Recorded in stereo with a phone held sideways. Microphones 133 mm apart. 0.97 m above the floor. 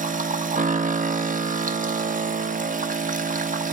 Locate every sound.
0.0 s a machine running: 85° right, 0.7 m